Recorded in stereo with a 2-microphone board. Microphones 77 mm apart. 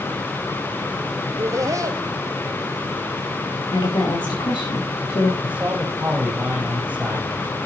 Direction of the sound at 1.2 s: 40° right (ahead or behind).